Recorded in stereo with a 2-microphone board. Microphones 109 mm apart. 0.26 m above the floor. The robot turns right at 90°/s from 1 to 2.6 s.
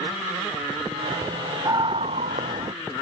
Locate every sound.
1.6 s a scream: 150° right; by 2.7 s 65° right